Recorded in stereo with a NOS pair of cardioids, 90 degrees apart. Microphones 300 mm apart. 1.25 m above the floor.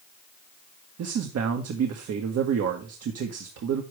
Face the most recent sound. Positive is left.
turn(degrees=-65)